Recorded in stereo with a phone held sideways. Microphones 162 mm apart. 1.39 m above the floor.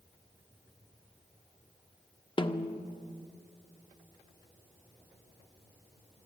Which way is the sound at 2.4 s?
30° left (ahead or behind).